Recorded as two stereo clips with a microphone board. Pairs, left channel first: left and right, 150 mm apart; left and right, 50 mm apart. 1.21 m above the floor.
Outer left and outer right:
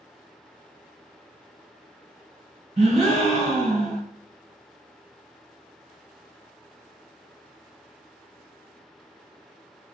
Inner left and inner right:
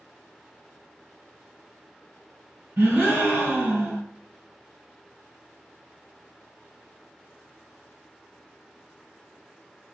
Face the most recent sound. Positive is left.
turn(degrees=-40)  # may be behind; listen again after turning